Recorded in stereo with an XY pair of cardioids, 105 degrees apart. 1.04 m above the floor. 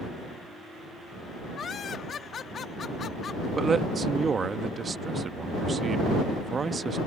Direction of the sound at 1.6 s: 50° left.